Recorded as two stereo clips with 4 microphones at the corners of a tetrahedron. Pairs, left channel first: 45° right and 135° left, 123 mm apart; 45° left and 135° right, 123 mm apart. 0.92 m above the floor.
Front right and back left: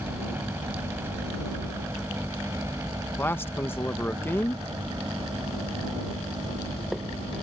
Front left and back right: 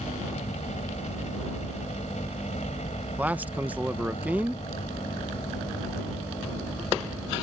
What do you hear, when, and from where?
0.0 s a helicopter: 60° left; by 7.4 s 80° left
3.2 s a man speaking: 80° right